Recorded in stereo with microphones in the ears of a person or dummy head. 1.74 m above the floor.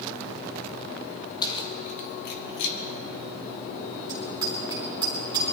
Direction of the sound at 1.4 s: 25° left (ahead or behind).